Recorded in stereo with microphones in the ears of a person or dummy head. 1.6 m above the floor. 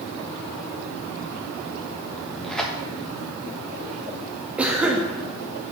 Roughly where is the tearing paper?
Centre.